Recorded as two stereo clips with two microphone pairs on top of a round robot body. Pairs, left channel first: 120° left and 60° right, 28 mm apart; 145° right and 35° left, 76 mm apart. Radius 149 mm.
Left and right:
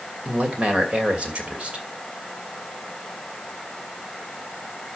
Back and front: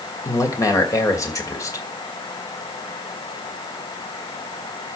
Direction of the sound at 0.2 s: 105° right.